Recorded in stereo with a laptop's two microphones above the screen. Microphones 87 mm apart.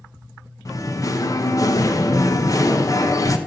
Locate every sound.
0.7 s singing: 40° left (ahead or behind), 1.0 m